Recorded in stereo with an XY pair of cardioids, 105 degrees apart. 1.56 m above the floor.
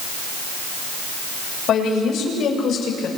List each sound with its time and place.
1.7 s a woman speaking: 70° left, 7 m